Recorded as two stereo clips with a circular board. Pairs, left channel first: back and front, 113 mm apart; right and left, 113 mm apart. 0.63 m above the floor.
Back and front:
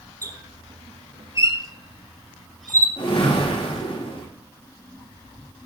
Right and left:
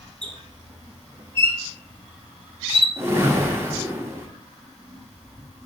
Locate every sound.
0.2 s a squeak: 60° left, 0.9 m
3.0 s a whoosh: 155° left, 1.2 m